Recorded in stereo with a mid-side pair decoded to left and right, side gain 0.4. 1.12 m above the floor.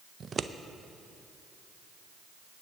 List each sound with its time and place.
0.2 s scissors: 45° right, 0.5 m